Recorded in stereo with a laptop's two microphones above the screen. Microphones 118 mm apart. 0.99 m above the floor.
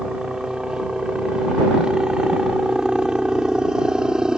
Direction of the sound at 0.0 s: 5° right (ahead or behind).